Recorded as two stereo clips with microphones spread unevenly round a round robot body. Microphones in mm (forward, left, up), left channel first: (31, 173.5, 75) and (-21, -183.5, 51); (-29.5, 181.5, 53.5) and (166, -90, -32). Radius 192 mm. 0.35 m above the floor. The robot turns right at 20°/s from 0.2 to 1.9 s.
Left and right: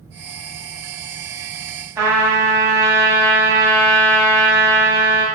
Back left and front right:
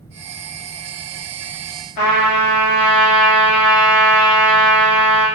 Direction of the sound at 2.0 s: Straight behind.